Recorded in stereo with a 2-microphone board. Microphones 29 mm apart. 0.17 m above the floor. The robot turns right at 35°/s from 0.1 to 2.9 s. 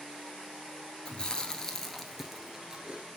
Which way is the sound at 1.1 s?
35° left (ahead or behind).